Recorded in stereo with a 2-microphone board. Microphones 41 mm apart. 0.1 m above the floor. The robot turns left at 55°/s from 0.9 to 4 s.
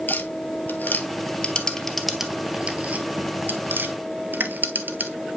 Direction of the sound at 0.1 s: 45° left (ahead or behind).